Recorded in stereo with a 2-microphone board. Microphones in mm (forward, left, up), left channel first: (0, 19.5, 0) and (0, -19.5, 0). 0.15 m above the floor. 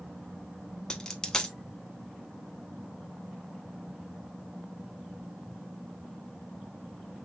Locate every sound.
0.9 s a dropped coin: 20° left (ahead or behind), 0.5 m